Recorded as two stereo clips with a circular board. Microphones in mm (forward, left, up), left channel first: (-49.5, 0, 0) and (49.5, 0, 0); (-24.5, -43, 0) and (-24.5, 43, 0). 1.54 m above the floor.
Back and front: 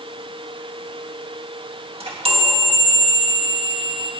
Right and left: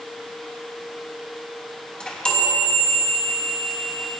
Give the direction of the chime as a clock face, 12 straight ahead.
12 o'clock.